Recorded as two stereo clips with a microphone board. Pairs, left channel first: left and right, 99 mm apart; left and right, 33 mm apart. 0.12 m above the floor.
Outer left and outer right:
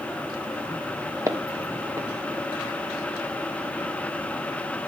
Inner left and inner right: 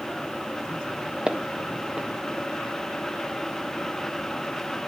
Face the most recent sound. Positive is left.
turn(degrees=-35)  # may be behind; listen again after turning